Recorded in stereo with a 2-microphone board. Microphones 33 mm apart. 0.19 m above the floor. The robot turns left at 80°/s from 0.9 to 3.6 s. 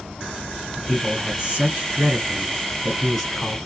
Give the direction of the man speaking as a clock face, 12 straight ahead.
12 o'clock.